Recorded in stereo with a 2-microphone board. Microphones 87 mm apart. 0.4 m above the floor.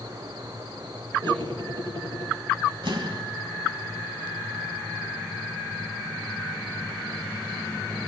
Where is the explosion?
70° right (ahead or behind), 2.5 m.